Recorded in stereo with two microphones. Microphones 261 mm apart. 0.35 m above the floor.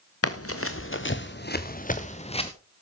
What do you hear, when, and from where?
0.2 s running footsteps: 70° left (ahead or behind), 1.5 m; by 2.5 s 20° left (ahead or behind), 1.7 m